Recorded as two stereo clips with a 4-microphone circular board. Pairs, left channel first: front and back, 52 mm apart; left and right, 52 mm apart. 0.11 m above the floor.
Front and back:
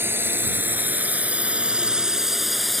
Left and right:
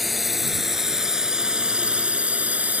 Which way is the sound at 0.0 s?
Straight behind.